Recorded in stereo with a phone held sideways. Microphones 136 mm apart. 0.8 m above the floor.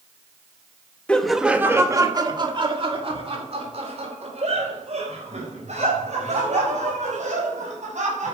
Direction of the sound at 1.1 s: 10° left (ahead or behind).